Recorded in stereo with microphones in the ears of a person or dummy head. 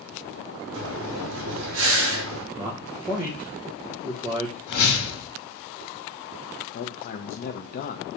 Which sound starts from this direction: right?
Breathing, at 0.7 s.